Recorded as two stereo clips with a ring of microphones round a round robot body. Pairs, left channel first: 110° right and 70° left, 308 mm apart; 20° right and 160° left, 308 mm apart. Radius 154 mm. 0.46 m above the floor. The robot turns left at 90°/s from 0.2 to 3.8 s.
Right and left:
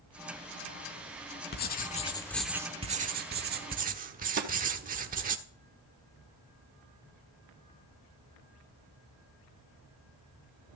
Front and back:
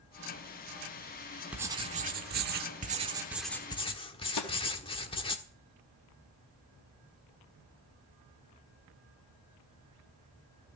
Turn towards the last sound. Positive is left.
turn(degrees=10)